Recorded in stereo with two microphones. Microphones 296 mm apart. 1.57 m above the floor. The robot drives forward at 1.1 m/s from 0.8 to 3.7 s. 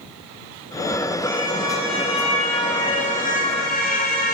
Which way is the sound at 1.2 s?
15° left (ahead or behind).